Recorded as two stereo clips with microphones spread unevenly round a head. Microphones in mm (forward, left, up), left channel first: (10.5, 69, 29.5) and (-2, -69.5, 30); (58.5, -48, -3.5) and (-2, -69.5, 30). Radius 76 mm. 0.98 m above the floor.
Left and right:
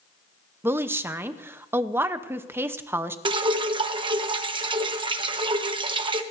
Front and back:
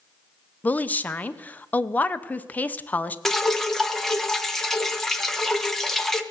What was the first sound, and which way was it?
A woman speaking, 25° right.